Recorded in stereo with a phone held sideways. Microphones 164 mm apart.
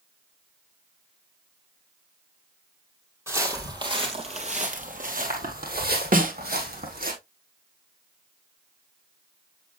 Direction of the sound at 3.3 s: 15° right (ahead or behind).